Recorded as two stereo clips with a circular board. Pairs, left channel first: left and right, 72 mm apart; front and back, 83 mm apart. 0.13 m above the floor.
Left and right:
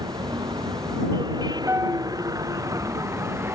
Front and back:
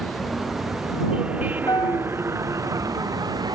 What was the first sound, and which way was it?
A vehicle, 85° right.